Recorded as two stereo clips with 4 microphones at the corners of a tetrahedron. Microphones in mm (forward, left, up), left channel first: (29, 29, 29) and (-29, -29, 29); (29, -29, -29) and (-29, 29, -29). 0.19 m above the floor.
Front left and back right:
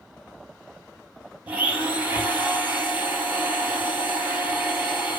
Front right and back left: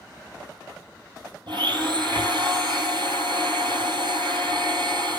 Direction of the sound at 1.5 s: 155° left.